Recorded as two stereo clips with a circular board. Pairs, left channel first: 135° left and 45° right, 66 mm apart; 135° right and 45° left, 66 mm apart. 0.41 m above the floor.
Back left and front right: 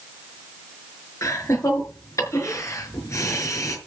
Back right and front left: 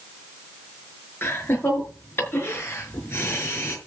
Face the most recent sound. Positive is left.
turn(degrees=170)